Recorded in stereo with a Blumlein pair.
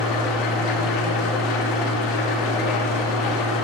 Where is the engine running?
40° left, 1.8 m.